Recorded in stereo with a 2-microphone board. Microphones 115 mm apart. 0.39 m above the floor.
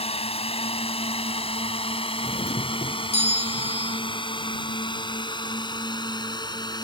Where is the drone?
60° left (ahead or behind); by 6.8 s 40° left (ahead or behind).